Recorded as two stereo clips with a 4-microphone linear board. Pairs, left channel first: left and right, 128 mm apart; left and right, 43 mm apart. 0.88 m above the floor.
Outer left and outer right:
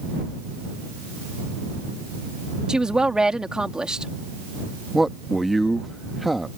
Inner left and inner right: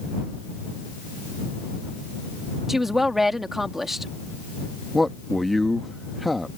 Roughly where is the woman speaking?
Centre.